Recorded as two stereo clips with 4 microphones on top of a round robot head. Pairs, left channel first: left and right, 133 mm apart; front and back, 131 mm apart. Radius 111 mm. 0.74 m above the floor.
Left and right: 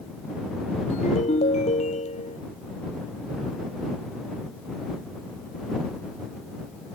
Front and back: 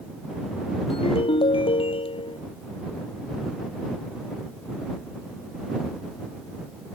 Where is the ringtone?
45° left.